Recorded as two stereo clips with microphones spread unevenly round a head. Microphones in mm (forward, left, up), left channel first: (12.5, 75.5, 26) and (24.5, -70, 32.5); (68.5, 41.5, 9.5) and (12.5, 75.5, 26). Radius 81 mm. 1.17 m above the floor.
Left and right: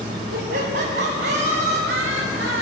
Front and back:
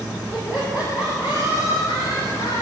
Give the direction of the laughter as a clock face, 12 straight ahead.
4 o'clock.